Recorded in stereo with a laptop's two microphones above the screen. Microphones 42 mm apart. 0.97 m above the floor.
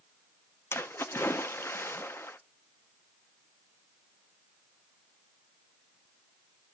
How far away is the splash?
About 0.5 m.